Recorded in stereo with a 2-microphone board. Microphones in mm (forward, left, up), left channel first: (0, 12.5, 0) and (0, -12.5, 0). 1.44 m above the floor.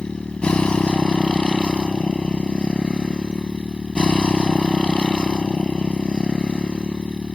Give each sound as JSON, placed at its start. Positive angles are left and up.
{"t": 0.0, "sound": "a motorcycle", "side_deg": 45}